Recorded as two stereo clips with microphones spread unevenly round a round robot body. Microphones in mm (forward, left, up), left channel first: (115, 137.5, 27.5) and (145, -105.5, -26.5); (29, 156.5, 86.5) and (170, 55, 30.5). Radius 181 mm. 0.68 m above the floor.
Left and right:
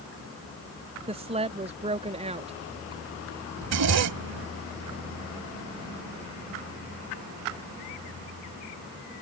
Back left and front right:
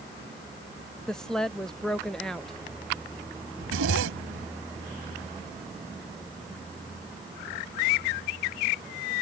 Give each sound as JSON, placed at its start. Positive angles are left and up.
{"t": 1.1, "sound": "a woman speaking", "azimuth_deg": -105}
{"t": 3.6, "sound": "a zipper", "azimuth_deg": -65}